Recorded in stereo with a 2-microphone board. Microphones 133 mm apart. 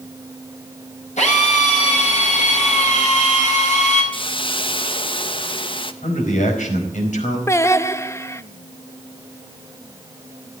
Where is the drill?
65° left (ahead or behind), 5.5 m.